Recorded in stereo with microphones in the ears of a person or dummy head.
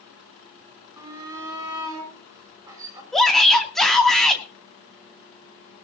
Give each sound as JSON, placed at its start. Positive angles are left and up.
{"t": 1.0, "sound": "a shout", "side_deg": -15, "distance_m": 7.5}
{"t": 3.1, "sound": "a shout", "side_deg": 0, "distance_m": 2.5}